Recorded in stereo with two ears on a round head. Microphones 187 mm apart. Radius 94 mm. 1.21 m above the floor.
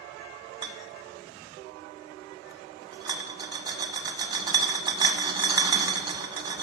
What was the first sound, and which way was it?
A rattle, 20° right (ahead or behind).